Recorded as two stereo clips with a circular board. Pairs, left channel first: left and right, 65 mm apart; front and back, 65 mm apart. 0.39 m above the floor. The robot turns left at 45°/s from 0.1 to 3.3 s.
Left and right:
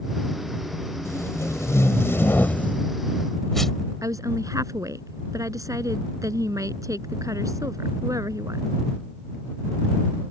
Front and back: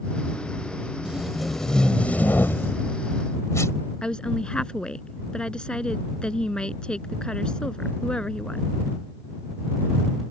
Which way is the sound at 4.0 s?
75° right.